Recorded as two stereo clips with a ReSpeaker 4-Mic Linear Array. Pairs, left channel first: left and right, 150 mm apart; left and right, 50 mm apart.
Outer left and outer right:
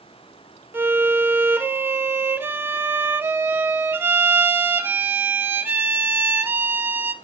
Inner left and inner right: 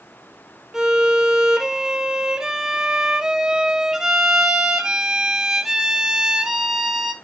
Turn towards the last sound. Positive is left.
turn(degrees=-15)  # may be behind; listen again after turning